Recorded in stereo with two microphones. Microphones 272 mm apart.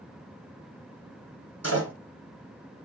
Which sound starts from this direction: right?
A door slam, at 1.6 s.